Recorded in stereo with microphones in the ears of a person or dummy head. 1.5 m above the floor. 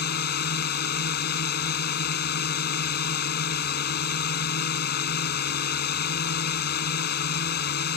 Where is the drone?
55° left (ahead or behind).